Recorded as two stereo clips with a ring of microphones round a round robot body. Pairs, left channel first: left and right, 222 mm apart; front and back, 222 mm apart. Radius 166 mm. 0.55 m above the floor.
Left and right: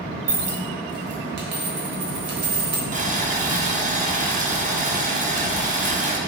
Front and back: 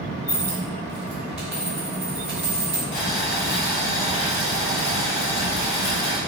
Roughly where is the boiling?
Ahead right.